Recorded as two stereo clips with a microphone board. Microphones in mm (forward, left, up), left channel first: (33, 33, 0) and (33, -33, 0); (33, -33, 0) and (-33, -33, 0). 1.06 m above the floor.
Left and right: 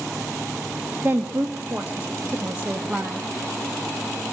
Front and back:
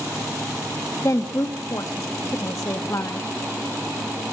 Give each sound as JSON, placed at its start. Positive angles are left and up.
{"t": 1.0, "sound": "a woman speaking", "azimuth_deg": -35, "distance_m": 1.4}